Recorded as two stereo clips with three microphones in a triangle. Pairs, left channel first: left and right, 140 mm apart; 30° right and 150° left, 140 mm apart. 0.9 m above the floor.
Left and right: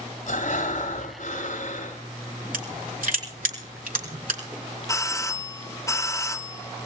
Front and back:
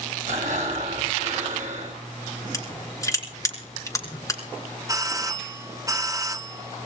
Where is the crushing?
95° right, 4 m.